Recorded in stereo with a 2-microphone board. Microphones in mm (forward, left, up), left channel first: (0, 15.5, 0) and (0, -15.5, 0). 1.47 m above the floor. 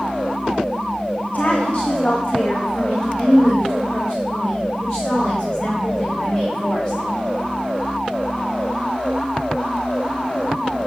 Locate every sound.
1.3 s a woman speaking: 50° left (ahead or behind), 1.2 m; by 7.0 s 10° left (ahead or behind), 6 m